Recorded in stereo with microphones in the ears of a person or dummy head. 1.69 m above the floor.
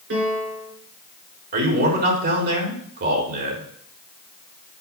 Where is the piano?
65° right (ahead or behind), 4.5 m.